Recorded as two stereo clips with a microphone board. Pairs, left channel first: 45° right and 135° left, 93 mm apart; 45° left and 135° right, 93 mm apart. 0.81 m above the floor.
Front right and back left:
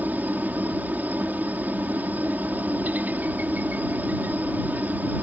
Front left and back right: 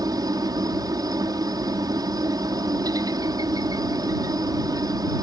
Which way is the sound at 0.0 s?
160° right.